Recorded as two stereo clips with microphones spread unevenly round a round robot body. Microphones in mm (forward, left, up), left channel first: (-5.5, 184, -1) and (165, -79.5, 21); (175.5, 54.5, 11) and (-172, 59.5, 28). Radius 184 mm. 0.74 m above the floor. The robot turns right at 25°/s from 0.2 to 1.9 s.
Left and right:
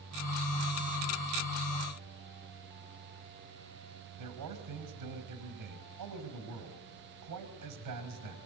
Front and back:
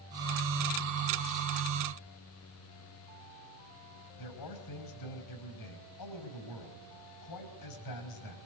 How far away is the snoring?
I don't hear snoring.